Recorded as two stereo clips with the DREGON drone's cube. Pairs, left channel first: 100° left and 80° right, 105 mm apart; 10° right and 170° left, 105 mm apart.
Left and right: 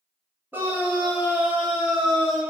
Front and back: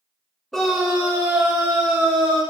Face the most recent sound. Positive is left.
turn(degrees=-165)